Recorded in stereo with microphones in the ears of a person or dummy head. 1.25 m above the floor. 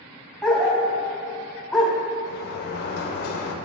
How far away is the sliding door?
About 0.7 m.